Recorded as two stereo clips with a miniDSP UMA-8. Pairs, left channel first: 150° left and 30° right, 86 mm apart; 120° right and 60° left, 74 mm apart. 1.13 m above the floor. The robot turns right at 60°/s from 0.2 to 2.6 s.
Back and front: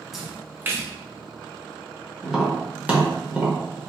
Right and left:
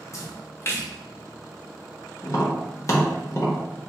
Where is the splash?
115° right, 0.7 m; by 0.9 s 75° right, 0.7 m.